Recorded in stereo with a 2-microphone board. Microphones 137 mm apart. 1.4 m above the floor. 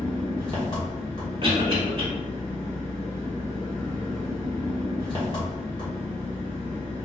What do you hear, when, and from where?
0.0 s an engine running: 35° left (ahead or behind), 1.1 m
1.4 s a cough: 40° right (ahead or behind), 1.4 m